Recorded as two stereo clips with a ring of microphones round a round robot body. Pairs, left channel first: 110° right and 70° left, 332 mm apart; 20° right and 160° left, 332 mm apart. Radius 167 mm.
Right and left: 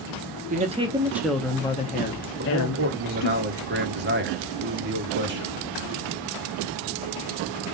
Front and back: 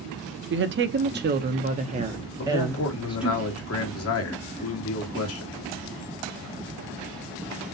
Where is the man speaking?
15° left, 1.7 m.